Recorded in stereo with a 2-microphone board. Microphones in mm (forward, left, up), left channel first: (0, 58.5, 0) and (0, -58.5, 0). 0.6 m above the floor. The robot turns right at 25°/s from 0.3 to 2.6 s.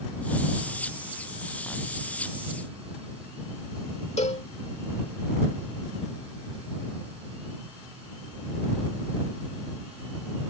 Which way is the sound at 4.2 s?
75° left (ahead or behind).